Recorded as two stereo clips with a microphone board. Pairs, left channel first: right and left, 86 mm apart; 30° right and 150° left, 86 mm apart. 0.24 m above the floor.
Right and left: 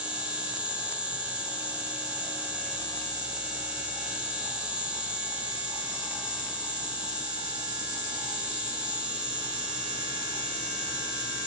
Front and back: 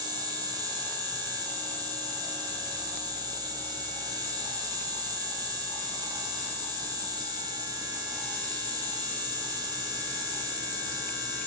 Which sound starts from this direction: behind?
An insect, at 0.0 s.